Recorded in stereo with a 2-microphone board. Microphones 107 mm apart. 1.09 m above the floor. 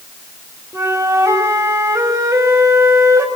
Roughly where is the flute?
Right.